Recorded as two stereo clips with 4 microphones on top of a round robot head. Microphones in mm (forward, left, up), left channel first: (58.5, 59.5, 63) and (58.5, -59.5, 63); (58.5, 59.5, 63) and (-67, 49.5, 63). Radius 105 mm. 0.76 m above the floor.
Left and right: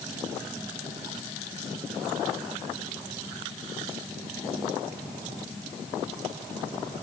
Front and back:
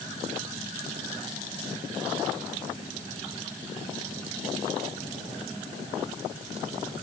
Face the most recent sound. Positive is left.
No sound to turn to.